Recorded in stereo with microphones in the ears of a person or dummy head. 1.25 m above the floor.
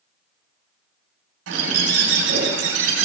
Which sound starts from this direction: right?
A bird, at 1.5 s.